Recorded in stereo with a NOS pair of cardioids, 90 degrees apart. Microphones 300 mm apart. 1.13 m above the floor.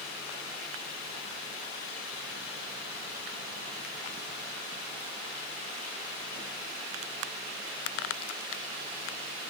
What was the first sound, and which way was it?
Only background noise.